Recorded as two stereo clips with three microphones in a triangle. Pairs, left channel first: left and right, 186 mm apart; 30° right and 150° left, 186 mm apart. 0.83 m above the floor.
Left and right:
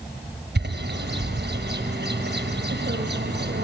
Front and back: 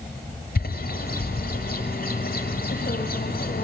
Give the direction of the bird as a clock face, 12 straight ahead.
2 o'clock.